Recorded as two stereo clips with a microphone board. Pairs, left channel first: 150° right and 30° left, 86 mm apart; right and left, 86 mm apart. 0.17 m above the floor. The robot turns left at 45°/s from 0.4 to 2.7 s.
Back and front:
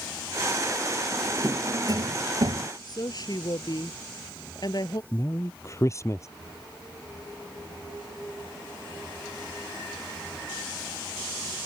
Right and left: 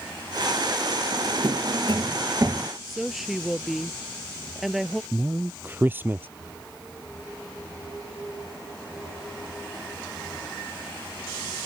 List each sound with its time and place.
1.1 s a drawer: 105° left; by 2.7 s 30° left
2.9 s a woman speaking: straight behind
5.1 s a man speaking: 155° left